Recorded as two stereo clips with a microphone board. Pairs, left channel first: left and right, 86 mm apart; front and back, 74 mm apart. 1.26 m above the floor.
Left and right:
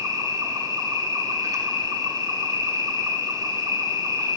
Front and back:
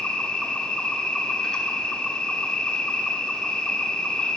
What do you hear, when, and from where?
0.0 s an insect: 75° right, 1.1 m